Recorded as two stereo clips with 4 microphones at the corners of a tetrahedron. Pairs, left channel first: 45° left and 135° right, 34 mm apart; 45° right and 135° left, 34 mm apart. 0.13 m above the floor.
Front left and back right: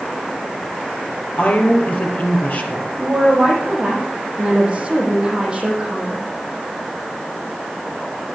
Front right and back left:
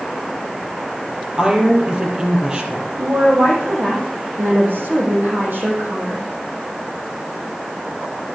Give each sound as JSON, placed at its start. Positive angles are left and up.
{"t": 1.4, "sound": "a woman speaking", "azimuth_deg": 70, "distance_m": 3.5}
{"t": 3.0, "sound": "a woman speaking", "azimuth_deg": 155, "distance_m": 5.5}